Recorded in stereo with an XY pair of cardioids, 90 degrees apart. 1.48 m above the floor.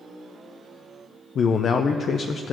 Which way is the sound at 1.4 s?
60° left.